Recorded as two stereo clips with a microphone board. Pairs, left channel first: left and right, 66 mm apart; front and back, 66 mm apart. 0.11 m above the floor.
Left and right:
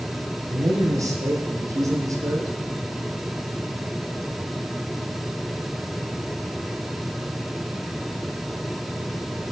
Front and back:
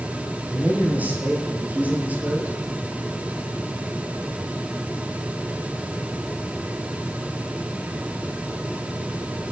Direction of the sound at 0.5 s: 115° right.